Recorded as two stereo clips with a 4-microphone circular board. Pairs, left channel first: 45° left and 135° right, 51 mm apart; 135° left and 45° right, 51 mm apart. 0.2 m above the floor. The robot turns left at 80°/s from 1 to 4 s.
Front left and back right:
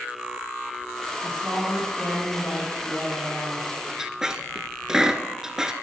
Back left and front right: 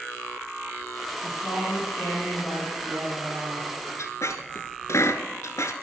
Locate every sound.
1.2 s a woman speaking: 170° left, 5 m; by 3.7 s 25° right, 5 m
4.0 s a squeak: 145° left, 1.0 m